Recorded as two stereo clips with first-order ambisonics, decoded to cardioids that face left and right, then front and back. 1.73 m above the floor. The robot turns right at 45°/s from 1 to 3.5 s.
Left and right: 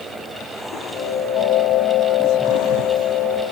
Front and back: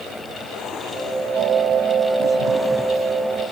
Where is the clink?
No clink in this recording.